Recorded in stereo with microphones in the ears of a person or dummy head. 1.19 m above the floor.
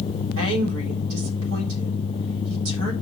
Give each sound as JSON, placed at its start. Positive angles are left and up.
{"t": 0.4, "sound": "a woman speaking", "side_deg": -70, "distance_m": 3.5}